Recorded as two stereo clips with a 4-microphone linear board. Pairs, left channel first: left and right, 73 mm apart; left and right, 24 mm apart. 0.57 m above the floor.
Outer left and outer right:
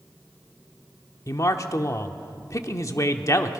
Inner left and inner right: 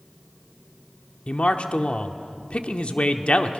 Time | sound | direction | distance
1.3 | a man speaking | 45° left (ahead or behind) | 1.0 m